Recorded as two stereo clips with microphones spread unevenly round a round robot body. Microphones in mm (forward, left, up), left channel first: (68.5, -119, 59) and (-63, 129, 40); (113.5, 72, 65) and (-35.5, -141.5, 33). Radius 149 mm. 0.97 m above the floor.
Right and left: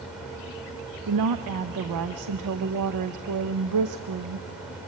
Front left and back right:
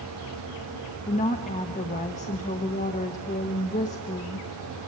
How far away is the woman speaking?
About 0.8 m.